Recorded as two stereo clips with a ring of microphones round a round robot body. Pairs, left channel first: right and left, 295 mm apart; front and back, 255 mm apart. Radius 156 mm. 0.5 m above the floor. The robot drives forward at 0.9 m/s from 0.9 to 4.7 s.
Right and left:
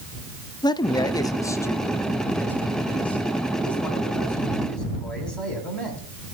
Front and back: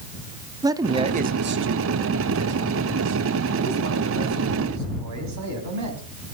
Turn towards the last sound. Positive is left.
turn(degrees=-175)